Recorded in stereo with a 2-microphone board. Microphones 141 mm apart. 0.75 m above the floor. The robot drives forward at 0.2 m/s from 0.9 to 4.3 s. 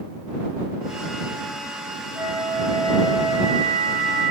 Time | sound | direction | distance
2.1 | a flute | 45° right (ahead or behind) | 1.6 m